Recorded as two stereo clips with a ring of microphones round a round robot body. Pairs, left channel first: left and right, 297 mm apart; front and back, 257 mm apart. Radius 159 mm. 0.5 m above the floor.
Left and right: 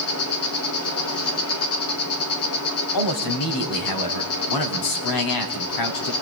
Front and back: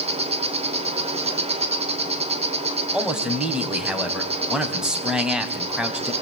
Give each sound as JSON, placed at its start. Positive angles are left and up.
{"t": 0.0, "sound": "an insect", "azimuth_deg": 115, "distance_m": 3.0}
{"t": 2.9, "sound": "a man speaking", "azimuth_deg": 95, "distance_m": 3.5}